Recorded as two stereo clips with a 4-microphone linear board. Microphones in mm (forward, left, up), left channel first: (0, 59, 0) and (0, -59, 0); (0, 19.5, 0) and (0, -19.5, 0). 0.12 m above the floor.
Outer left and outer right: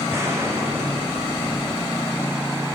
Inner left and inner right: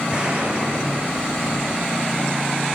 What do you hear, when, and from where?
0.1 s an explosion: 25° right (ahead or behind), 6.5 m